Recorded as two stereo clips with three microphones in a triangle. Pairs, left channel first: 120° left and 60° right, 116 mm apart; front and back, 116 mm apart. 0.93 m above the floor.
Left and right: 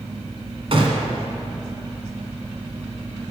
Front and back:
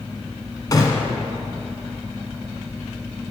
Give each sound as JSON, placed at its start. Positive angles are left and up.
{"t": 0.7, "sound": "a gunshot", "azimuth_deg": -50, "distance_m": 1.2}